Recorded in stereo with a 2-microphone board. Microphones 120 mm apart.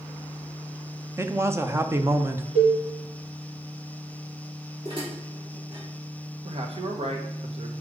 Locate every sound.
1.2 s a man speaking: 20° right (ahead or behind), 0.8 m
2.5 s a cowbell: 85° right, 3.5 m
4.8 s dishes clattering: 45° right (ahead or behind), 3 m
6.5 s a man speaking: 55° right (ahead or behind), 1.5 m